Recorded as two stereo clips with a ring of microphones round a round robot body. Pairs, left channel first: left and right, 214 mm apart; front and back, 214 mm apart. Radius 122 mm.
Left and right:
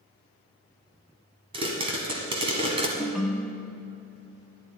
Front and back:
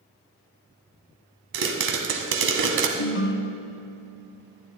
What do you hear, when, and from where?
1.5 s a pop: 155° right, 1.4 m
3.0 s a ringtone: straight ahead, 0.6 m